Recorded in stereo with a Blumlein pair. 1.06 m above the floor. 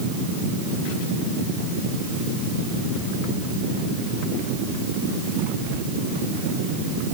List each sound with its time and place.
Only background noise.